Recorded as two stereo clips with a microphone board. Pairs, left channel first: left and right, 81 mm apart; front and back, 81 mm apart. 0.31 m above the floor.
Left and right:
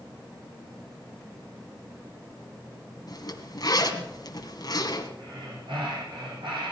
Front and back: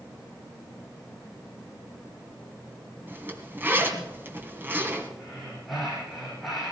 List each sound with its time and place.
3.1 s a zipper: 120° left, 2.0 m
5.2 s breathing: 90° right, 7 m